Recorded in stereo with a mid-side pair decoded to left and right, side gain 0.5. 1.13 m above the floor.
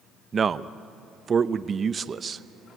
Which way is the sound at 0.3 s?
40° right.